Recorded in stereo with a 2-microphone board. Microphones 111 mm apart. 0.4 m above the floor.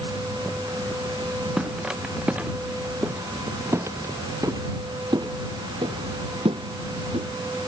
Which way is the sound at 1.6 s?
5° right (ahead or behind).